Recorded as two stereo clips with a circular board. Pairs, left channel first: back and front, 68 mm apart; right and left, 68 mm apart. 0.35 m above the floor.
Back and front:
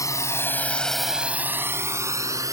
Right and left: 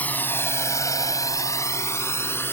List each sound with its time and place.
0.0 s a drone: 155° right; by 2.5 s 35° right